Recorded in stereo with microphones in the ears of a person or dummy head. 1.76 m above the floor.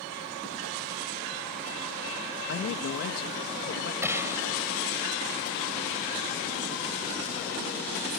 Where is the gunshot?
15° right (ahead or behind).